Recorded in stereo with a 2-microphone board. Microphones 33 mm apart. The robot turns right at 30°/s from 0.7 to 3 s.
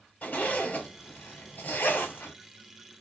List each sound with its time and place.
0.2 s a zipper: 55° left (ahead or behind), 1.1 m; by 2.3 s 65° left (ahead or behind), 1.1 m